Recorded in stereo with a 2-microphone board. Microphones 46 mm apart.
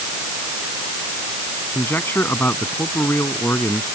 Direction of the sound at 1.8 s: 50° left (ahead or behind).